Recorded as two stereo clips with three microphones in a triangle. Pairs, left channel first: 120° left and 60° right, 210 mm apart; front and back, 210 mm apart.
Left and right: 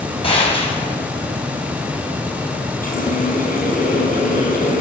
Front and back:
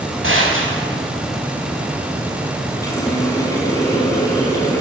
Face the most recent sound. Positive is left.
turn(degrees=75)